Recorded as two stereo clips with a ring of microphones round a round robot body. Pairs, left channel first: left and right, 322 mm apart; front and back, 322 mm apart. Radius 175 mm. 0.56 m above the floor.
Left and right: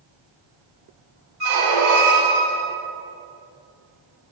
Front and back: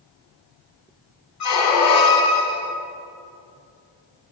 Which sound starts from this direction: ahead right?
A squeak, at 1.4 s.